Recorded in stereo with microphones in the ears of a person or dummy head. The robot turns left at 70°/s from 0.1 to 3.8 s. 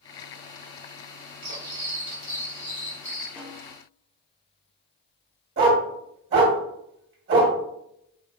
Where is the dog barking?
35° right (ahead or behind), 1.3 m.